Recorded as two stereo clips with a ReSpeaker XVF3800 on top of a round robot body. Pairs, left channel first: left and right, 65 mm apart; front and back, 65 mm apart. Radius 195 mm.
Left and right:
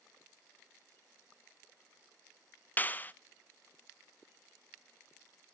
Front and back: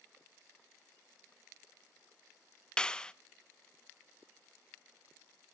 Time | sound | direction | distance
2.8 | a clap | 65° left | 1.1 m